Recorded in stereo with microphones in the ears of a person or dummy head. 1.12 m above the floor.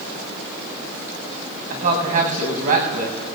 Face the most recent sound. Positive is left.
turn(degrees=-45)  # may be behind; listen again after turning